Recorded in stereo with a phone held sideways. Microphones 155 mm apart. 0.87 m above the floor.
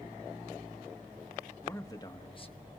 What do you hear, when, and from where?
1.6 s a man speaking: 15° left (ahead or behind), 1.4 m; by 2.7 s 40° left (ahead or behind), 1.1 m